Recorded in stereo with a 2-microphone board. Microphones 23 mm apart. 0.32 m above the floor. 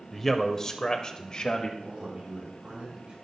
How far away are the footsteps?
I don't hear footsteps.